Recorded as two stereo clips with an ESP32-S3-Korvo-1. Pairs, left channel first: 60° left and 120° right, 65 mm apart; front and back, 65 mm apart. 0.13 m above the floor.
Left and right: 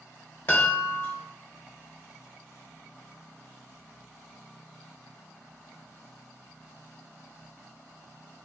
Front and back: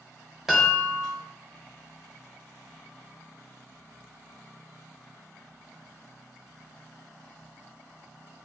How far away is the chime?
About 1.3 m.